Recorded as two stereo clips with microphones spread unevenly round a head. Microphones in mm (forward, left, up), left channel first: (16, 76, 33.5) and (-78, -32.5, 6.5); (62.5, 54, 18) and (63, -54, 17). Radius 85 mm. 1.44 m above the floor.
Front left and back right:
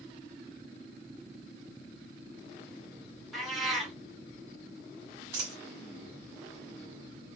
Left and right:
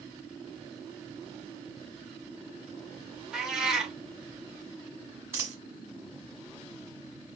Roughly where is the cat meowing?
Ahead.